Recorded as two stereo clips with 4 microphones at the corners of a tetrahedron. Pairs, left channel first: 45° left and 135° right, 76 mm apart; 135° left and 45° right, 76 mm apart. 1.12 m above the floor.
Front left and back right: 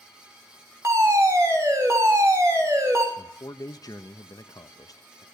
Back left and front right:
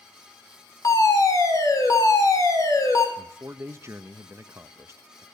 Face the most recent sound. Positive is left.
turn(degrees=10)